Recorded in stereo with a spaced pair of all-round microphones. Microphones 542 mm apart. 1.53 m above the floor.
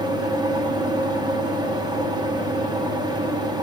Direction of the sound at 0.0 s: 10° right (ahead or behind).